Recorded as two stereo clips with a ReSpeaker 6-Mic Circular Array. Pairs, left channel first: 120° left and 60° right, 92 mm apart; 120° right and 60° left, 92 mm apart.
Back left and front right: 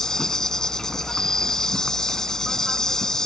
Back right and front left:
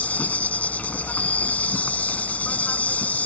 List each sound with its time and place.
0.0 s an insect: 165° right